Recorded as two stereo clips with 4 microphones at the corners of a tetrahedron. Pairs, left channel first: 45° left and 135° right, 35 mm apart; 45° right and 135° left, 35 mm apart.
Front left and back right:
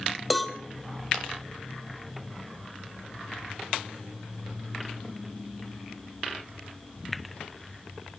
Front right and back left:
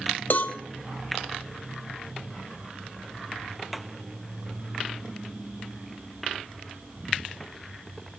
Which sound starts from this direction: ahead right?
A cowbell, at 0.3 s.